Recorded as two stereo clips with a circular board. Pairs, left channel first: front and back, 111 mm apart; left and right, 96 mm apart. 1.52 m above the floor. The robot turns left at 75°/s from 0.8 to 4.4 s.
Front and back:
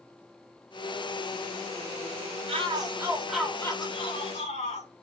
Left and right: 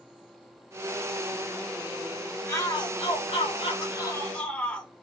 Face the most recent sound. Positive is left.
turn(degrees=10)